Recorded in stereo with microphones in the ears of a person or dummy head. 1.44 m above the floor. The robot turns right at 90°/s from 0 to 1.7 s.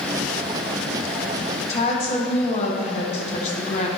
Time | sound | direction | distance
1.7 | a woman speaking | 35° left (ahead or behind) | 1.5 m